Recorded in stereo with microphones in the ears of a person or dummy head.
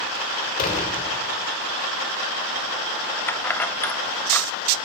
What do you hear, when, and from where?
0.6 s a door slam: 50° left (ahead or behind), 3.5 m
3.3 s keys jangling: 10° left (ahead or behind), 1.0 m